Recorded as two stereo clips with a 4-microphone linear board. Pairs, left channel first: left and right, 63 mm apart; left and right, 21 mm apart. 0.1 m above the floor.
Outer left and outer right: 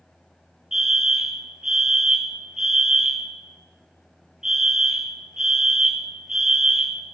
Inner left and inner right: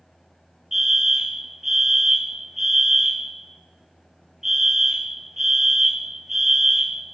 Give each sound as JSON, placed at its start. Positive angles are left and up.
{"t": 0.7, "sound": "a fire alarm", "side_deg": -10, "distance_m": 3.5}